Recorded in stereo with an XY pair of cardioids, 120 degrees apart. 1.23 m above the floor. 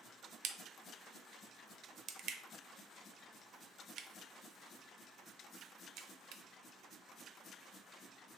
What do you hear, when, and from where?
0.4 s a crack: 65° right, 0.5 m